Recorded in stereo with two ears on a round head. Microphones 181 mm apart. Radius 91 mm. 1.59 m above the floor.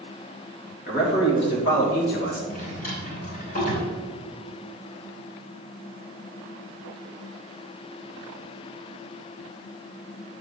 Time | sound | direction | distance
0.9 | a man speaking | 50° left (ahead or behind) | 3 m
2.5 | a drawer | 40° left (ahead or behind) | 3.5 m